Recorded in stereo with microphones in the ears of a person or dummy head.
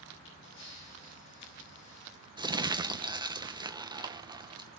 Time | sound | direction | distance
0.2 | a camera shutter | 70° left (ahead or behind) | 7.5 m
2.4 | crumpling | 20° right (ahead or behind) | 0.7 m